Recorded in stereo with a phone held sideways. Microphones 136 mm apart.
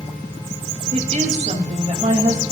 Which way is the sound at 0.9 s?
55° right (ahead or behind).